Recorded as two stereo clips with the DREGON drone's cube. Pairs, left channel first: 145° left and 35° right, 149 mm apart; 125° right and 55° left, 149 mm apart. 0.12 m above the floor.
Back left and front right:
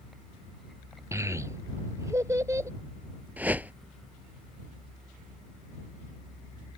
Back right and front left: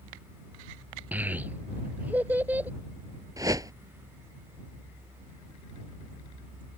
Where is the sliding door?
No sliding door in this recording.